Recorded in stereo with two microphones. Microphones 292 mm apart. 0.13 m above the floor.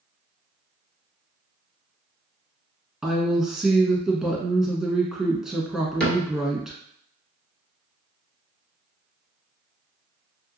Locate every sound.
3.0 s a woman speaking: centre (ahead or behind), 1.1 m
6.0 s a cupboard door: 5° left (ahead or behind), 1.3 m